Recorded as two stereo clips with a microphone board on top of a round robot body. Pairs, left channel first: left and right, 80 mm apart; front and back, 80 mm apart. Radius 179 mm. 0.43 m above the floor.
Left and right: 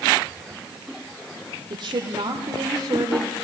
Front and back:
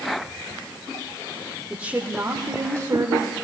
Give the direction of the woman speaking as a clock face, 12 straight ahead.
3 o'clock.